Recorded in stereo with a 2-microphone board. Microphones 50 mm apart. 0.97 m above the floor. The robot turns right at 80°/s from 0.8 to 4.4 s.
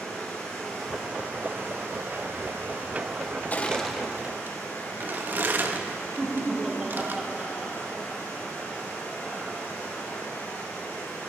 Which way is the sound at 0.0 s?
175° left.